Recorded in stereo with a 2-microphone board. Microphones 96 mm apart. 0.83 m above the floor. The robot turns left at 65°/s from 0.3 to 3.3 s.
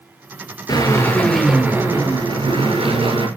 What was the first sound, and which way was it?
A drill, 50° left.